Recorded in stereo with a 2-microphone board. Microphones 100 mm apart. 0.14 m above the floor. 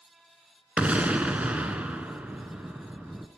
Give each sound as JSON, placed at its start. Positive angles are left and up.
{"t": 0.8, "sound": "an explosion", "side_deg": -15, "distance_m": 0.9}